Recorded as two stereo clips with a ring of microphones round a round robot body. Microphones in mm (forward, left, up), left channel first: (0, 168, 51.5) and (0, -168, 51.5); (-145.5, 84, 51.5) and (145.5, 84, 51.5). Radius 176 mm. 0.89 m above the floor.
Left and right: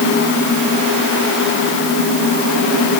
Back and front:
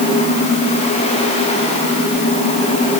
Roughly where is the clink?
No clink in this recording.